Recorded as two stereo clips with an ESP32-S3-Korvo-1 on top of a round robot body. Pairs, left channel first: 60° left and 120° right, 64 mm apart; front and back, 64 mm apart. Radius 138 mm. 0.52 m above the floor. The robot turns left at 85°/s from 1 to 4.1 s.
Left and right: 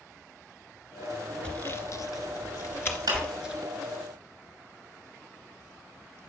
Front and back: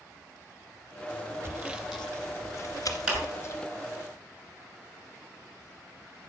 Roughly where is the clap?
Right.